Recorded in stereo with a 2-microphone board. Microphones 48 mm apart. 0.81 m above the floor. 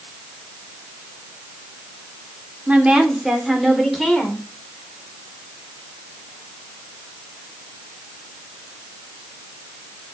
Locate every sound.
2.7 s a woman speaking: 30° right (ahead or behind), 2 m; by 4.4 s 10° left (ahead or behind), 3 m